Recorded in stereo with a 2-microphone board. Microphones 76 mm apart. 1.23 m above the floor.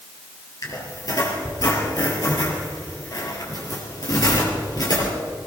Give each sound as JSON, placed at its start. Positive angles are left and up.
{"t": 0.6, "sound": "a squeak", "side_deg": 55, "distance_m": 4.0}